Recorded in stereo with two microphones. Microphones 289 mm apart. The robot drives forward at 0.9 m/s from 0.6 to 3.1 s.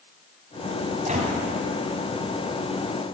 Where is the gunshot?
25° right (ahead or behind), 2.5 m.